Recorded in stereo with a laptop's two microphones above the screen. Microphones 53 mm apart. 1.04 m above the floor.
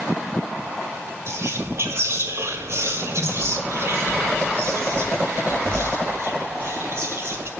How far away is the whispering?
About 2 m.